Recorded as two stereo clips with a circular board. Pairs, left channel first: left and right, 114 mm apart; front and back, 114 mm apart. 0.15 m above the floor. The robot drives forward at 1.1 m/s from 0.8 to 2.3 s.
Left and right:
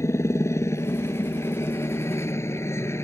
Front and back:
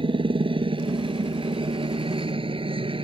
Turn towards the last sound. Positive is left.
turn(degrees=150)